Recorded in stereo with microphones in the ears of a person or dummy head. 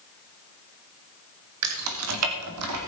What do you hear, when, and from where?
1.6 s keys jangling: 80° right, 1.5 m; by 2.8 s 85° right, 3 m